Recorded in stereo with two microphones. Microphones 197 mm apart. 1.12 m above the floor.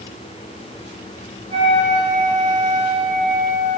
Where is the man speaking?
I don't hear a man speaking.